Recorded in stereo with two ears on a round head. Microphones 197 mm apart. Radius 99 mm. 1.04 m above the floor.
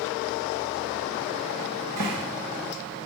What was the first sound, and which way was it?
A cupboard door, 75° right (ahead or behind).